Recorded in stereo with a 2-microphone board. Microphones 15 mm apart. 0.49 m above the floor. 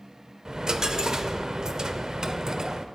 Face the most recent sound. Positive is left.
turn(degrees=-45)  # may be behind; listen again after turning